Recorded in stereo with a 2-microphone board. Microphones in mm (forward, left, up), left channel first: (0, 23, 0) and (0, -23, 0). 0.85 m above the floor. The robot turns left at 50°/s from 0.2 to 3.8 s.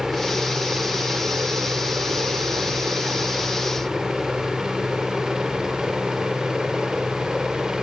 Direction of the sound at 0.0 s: 5° left (ahead or behind).